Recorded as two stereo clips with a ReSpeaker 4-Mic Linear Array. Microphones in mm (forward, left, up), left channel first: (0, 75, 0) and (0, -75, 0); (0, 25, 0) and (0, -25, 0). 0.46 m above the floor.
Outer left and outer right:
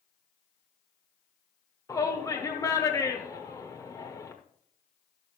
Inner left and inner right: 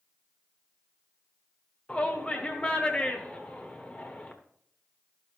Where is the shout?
20° left (ahead or behind), 1.1 m.